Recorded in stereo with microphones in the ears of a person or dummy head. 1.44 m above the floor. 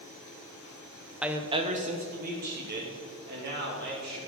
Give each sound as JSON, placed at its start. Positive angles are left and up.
{"t": 1.2, "sound": "a woman speaking", "side_deg": 0, "distance_m": 0.8}